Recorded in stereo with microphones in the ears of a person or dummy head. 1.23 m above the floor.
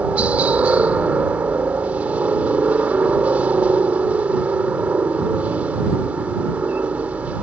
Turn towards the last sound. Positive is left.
turn(degrees=-10)  # may be behind; listen again after turning